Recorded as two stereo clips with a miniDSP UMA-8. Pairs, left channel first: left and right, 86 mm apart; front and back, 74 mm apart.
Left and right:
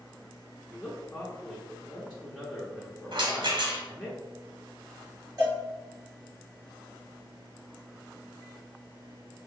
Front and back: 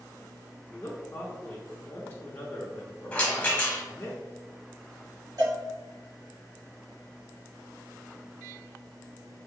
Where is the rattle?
75° right, 1.2 m.